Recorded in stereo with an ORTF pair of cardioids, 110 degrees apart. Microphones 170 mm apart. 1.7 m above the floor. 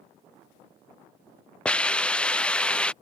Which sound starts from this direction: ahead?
A hiss, at 1.6 s.